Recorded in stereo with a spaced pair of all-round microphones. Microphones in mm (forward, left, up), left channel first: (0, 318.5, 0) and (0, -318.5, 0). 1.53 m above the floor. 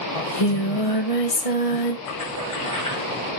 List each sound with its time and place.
0.1 s singing: 60° left (ahead or behind), 1.4 m
2.1 s a splash: 30° left (ahead or behind), 7 m